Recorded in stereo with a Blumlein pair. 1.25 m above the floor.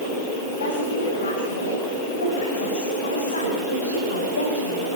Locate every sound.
0.6 s a woman speaking: 60° left, 5.5 m; by 4.9 s 75° left, 3.5 m